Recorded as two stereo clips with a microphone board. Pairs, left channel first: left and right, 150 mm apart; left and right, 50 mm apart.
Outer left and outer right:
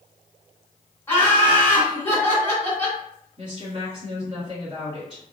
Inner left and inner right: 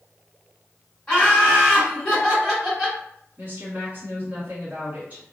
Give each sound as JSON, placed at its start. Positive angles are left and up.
{"t": 1.1, "sound": "laughter", "side_deg": 15, "distance_m": 1.8}
{"t": 3.4, "sound": "a woman speaking", "side_deg": -35, "distance_m": 1.3}